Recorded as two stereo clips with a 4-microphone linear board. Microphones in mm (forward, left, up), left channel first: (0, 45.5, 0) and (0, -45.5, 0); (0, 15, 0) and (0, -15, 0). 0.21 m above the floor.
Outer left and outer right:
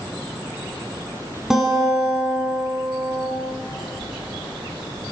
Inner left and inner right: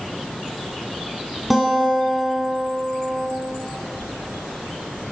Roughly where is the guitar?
Centre.